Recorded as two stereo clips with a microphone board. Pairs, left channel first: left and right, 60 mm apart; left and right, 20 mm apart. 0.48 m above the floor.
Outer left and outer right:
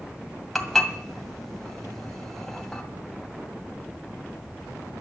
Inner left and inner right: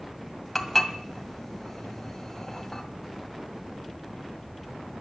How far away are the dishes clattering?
About 1.9 m.